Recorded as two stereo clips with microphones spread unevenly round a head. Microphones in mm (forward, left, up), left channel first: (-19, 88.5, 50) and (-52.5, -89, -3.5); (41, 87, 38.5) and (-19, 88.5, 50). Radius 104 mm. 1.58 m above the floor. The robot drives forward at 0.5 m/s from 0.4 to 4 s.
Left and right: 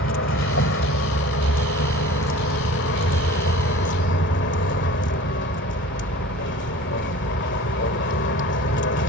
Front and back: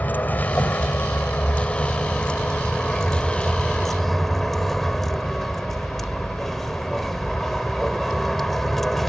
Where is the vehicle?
60° left; by 9.1 s 90° left.